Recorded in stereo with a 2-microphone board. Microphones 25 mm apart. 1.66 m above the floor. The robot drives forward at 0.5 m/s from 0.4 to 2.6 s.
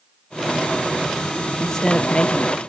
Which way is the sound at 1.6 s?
25° left (ahead or behind).